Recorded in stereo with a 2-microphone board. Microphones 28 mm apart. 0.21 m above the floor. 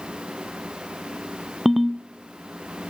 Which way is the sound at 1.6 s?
10° right (ahead or behind).